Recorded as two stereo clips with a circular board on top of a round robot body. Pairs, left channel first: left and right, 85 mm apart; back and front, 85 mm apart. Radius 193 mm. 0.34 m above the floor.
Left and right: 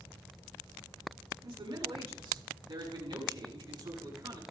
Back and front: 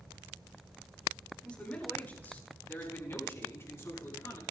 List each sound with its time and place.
1.4 s a man speaking: 105° right, 6 m; by 4.4 s 125° right, 8.5 m